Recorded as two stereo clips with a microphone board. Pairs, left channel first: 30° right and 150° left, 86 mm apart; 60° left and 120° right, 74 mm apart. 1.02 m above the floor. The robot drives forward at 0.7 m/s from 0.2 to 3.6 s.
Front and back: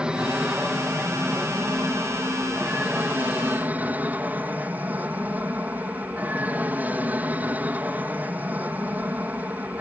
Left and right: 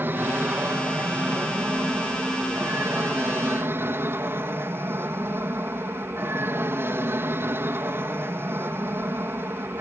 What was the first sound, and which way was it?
An aircraft, 140° right.